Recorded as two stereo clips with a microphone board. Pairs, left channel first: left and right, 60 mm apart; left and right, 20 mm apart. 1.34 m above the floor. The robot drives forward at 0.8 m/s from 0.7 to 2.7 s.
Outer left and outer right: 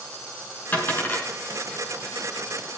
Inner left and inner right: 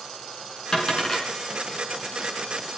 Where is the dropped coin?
30° left (ahead or behind), 6 m.